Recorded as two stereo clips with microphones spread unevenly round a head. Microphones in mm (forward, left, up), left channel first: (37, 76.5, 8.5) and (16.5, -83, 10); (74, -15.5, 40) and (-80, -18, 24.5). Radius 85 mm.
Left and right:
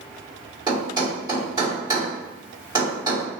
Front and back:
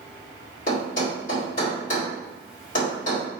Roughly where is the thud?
Ahead right.